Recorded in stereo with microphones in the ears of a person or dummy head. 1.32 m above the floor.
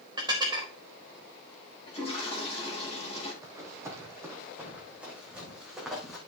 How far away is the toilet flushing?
About 8.5 m.